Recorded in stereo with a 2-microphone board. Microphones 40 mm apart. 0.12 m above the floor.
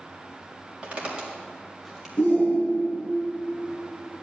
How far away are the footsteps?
About 4.5 m.